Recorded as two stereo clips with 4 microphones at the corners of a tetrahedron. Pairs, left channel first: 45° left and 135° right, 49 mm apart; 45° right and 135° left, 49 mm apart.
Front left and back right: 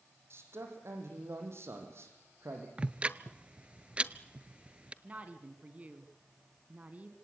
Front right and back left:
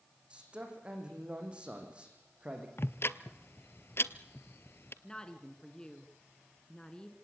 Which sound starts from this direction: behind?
A man speaking, at 0.3 s.